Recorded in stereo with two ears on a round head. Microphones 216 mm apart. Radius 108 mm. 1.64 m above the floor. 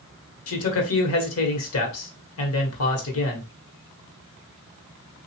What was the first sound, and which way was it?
A man speaking, 65° left (ahead or behind).